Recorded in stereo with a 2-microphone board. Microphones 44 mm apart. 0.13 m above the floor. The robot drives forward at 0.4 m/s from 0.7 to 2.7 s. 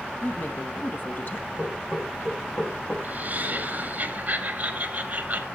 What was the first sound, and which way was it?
A woman speaking, 50° left (ahead or behind).